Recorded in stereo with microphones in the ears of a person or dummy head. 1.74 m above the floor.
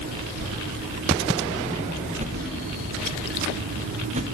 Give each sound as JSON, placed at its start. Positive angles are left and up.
{"t": 0.4, "sound": "a whoosh", "side_deg": -55, "distance_m": 6.5}
{"t": 2.2, "sound": "a whoosh", "side_deg": -40, "distance_m": 0.6}